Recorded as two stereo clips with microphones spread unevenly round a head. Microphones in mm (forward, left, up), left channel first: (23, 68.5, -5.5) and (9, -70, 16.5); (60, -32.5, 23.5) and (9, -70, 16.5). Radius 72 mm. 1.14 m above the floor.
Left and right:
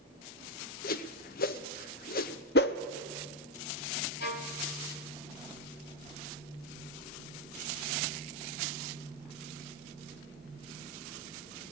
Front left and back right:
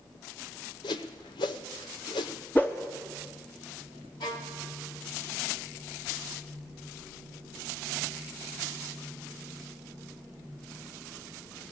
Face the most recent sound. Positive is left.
turn(degrees=75)